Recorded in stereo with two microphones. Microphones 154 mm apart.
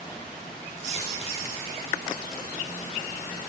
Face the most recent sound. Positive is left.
turn(degrees=40)  # may be behind; listen again after turning